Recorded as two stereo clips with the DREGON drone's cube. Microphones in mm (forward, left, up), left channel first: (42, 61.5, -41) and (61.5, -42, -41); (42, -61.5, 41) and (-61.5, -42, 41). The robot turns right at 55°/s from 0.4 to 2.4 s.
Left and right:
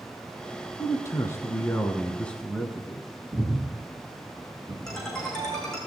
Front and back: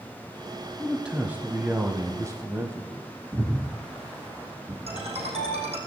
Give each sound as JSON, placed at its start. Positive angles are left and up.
{"t": 0.8, "sound": "a man speaking", "azimuth_deg": 85, "distance_m": 1.2}
{"t": 3.3, "sound": "breathing", "azimuth_deg": -125, "distance_m": 2.0}
{"t": 4.9, "sound": "a ringtone", "azimuth_deg": -170, "distance_m": 4.5}